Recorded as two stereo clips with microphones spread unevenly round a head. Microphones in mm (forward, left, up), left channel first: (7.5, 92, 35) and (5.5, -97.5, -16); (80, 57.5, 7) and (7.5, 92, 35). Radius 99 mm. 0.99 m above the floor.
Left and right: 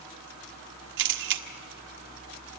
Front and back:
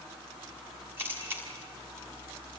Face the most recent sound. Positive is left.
turn(degrees=-125)